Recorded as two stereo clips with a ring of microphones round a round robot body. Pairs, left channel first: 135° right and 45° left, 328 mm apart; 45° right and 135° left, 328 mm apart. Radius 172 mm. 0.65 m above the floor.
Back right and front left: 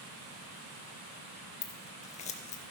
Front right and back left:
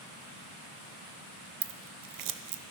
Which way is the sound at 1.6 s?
155° left.